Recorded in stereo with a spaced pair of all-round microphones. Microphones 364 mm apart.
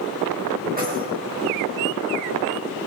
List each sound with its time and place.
0.8 s keys jangling: 25° right (ahead or behind), 4.5 m